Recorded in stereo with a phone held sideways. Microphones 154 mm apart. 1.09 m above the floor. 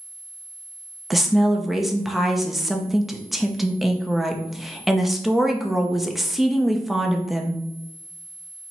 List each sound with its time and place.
1.1 s a woman speaking: centre (ahead or behind), 0.6 m